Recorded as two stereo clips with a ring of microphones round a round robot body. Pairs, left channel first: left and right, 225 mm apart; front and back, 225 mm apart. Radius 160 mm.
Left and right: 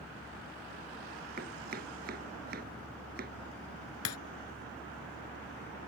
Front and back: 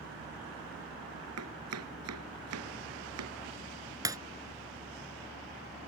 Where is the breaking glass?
105° left.